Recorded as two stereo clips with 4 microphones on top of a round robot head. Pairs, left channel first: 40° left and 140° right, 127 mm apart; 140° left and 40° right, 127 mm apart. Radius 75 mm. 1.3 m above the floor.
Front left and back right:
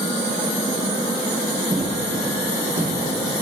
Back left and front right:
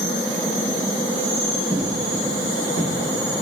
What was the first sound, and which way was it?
Footsteps, 155° left.